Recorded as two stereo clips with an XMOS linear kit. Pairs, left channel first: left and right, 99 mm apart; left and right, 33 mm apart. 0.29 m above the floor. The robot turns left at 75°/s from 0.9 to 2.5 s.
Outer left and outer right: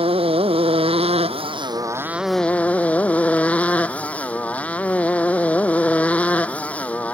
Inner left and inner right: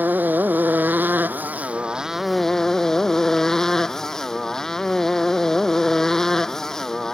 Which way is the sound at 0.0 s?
75° right.